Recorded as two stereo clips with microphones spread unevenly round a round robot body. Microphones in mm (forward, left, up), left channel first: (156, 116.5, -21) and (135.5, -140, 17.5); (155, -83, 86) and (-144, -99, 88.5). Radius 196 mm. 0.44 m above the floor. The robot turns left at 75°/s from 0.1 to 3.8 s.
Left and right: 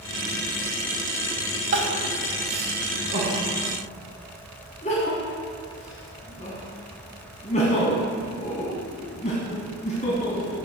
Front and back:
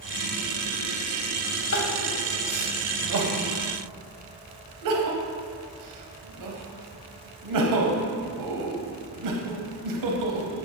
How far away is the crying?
About 1.3 m.